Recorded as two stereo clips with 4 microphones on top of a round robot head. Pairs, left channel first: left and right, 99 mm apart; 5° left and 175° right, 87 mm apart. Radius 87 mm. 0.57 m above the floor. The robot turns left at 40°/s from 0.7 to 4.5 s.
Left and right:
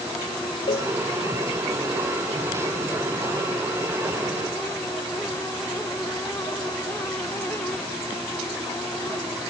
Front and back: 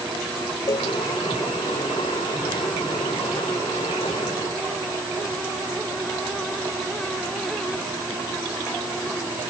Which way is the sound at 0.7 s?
55° left.